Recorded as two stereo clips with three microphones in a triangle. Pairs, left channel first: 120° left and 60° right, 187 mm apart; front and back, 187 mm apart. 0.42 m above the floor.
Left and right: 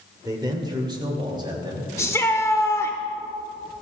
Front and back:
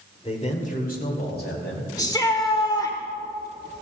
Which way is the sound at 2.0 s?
55° left.